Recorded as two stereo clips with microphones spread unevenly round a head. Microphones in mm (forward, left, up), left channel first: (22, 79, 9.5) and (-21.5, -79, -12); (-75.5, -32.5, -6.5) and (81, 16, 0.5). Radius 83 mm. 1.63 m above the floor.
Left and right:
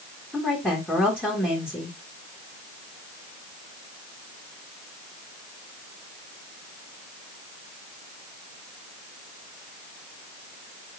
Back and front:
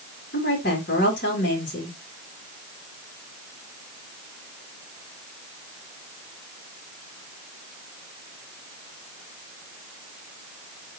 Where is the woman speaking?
155° left, 3.5 m.